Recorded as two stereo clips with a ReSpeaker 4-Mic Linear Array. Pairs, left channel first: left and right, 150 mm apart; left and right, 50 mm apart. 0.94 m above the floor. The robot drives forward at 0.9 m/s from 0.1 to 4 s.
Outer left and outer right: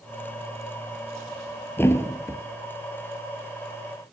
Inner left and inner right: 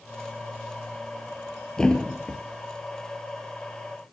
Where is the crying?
I don't hear crying.